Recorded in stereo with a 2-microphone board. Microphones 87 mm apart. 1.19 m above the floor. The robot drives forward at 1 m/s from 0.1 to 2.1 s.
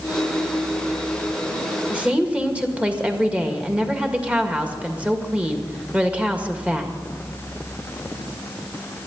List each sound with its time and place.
1.9 s a woman speaking: 15° right (ahead or behind), 2 m